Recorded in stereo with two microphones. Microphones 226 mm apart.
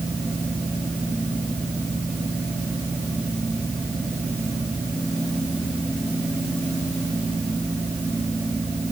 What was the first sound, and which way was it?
Only background noise.